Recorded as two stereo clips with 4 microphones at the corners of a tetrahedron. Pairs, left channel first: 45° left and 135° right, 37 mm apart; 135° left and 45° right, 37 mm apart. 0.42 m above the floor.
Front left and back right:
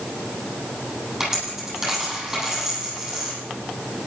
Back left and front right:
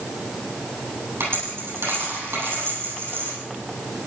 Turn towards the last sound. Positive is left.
turn(degrees=-60)